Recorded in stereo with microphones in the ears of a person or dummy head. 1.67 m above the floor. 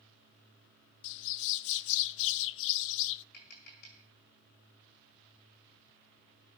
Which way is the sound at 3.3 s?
50° left (ahead or behind).